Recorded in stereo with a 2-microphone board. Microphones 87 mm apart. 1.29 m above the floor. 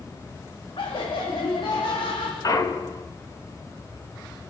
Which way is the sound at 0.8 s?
80° left.